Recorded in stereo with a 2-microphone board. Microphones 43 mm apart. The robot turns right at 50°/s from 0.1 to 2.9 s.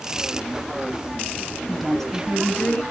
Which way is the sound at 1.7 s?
Straight ahead.